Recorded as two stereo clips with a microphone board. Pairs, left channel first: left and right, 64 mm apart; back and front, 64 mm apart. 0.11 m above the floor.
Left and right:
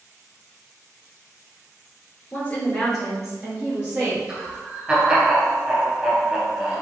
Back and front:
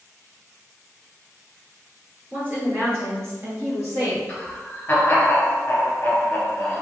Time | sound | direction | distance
2.3 | a woman speaking | 45° left | 1.8 m
4.3 | laughter | 150° right | 1.2 m